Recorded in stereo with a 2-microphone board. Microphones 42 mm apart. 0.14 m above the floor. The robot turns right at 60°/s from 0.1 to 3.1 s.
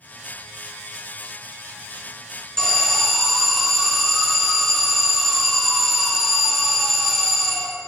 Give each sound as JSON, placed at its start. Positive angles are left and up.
{"t": 2.6, "sound": "an alarm", "azimuth_deg": 150, "distance_m": 0.9}